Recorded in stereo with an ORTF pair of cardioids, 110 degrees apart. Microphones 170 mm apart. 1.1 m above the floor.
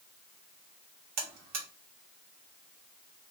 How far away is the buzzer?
About 0.9 m.